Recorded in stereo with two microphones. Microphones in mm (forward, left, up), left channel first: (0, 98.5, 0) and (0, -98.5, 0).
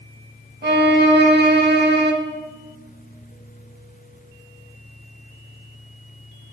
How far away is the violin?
About 0.8 m.